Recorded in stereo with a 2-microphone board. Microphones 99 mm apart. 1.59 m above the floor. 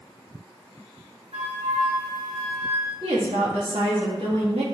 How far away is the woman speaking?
About 2 m.